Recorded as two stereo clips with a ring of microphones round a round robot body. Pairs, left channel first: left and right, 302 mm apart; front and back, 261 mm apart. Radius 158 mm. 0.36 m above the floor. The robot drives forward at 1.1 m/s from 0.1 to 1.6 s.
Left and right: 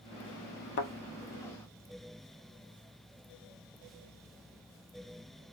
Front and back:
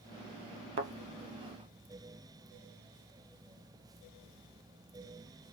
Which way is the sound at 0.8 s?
140° left.